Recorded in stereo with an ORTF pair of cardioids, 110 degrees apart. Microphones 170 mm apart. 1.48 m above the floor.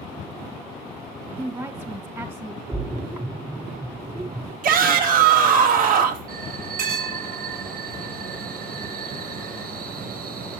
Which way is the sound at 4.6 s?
55° right.